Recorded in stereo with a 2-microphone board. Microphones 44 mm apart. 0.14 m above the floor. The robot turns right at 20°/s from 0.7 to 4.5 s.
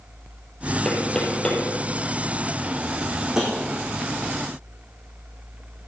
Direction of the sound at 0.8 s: 10° left (ahead or behind).